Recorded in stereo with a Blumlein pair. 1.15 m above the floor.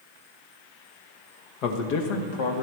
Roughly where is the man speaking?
Ahead left.